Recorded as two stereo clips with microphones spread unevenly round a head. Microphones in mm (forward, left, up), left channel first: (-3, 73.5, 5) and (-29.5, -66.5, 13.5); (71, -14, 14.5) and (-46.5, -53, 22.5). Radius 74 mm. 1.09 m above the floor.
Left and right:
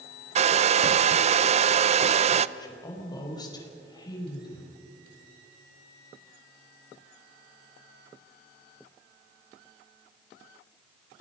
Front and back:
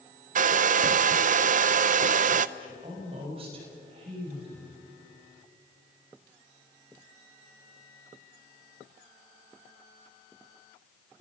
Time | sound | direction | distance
0.3 | a hair dryer | 145° right | 0.6 m
2.6 | a woman speaking | 140° left | 5 m